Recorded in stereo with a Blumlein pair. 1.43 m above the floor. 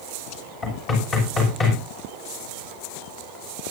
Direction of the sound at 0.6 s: 25° left.